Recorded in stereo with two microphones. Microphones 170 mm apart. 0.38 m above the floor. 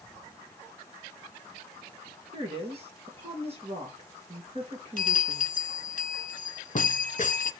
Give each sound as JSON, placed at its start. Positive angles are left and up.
{"t": 2.3, "sound": "a woman speaking", "side_deg": -35, "distance_m": 5.5}
{"t": 5.0, "sound": "a bell", "side_deg": 50, "distance_m": 0.8}